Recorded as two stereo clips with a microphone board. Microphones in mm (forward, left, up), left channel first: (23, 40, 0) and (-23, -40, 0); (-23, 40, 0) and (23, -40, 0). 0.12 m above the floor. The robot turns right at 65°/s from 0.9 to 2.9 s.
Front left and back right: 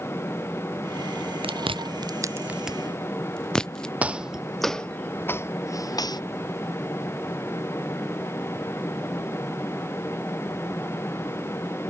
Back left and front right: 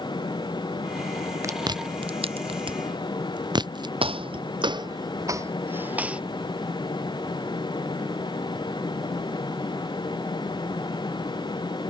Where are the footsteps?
45° right; by 6.2 s 20° left.